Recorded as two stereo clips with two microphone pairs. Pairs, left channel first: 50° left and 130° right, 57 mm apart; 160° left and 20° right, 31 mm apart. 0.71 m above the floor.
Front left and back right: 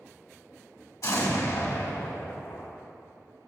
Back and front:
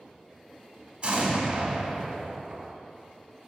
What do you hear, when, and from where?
1.0 s an explosion: 35° left, 1.3 m